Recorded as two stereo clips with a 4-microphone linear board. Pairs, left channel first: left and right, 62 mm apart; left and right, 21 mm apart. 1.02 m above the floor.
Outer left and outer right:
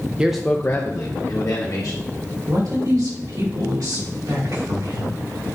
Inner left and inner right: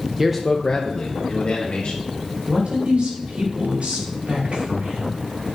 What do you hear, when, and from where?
0.2 s a man speaking: 15° right (ahead or behind), 0.6 m; by 2.1 s 80° left, 1.6 m
2.5 s a man speaking: 85° right, 4 m